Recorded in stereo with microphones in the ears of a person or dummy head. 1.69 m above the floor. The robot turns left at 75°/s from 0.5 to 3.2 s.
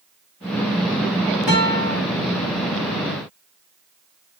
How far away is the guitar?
About 1.6 m.